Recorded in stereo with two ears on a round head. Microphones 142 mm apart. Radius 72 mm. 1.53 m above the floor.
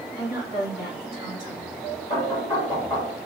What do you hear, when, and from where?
0.2 s a woman speaking: 60° left (ahead or behind), 3.5 m
2.1 s knocking: 30° left (ahead or behind), 2.5 m